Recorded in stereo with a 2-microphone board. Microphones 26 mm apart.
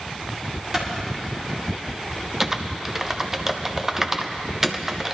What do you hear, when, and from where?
0.7 s a clap: 20° right (ahead or behind), 3 m
2.4 s typing on a keyboard: 15° right (ahead or behind), 0.6 m